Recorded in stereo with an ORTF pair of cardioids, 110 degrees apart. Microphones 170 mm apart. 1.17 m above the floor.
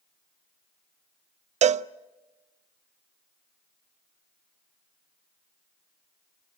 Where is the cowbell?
40° right, 0.5 m.